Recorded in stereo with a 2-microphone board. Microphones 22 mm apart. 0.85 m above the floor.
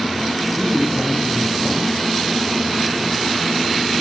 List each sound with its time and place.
0.6 s a man speaking: centre (ahead or behind), 6.5 m